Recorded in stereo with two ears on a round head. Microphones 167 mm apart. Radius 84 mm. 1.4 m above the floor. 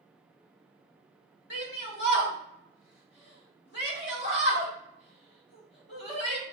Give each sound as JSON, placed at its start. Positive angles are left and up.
{"t": 1.5, "sound": "a shout", "side_deg": 65, "distance_m": 2.0}